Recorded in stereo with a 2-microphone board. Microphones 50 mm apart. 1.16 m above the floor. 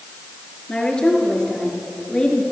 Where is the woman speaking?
20° left (ahead or behind), 3 m.